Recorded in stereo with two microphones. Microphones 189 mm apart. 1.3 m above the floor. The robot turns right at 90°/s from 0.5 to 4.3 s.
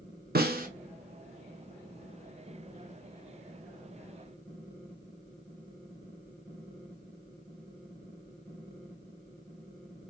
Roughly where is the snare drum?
Right.